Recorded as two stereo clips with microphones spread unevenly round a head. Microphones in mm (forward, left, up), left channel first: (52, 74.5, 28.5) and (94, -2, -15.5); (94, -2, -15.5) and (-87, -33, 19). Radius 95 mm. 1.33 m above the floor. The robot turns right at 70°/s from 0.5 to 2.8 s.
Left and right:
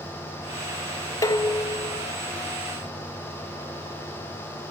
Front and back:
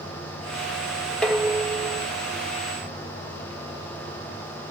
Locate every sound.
1.2 s dishes clattering: 100° left, 0.9 m; by 2.1 s 160° left, 0.9 m